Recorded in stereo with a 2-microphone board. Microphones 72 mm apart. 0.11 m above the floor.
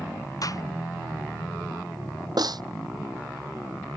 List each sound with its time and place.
0.4 s a gunshot: 50° left (ahead or behind)
2.4 s a snare drum: 60° right (ahead or behind)